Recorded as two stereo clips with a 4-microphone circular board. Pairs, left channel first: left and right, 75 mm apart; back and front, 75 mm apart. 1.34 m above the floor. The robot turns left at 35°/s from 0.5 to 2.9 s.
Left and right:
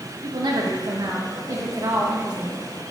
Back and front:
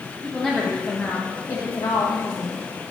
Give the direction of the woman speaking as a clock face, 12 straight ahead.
3 o'clock.